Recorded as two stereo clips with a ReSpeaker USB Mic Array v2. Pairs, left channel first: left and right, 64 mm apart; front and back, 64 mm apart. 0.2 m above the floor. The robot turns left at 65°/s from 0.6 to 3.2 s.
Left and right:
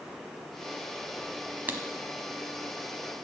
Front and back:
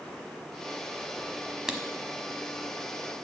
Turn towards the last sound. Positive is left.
turn(degrees=155)